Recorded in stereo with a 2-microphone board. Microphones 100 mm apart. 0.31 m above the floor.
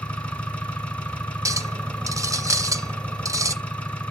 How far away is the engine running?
About 1.4 m.